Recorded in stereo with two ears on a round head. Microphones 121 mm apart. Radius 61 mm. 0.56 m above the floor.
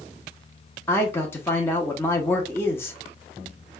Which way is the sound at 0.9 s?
15° left (ahead or behind).